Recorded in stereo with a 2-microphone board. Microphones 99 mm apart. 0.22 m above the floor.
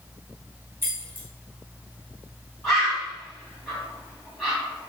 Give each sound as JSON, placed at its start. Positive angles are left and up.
{"t": 0.8, "sound": "keys jangling", "side_deg": -25, "distance_m": 1.1}
{"t": 2.6, "sound": "a bird", "side_deg": 0, "distance_m": 1.9}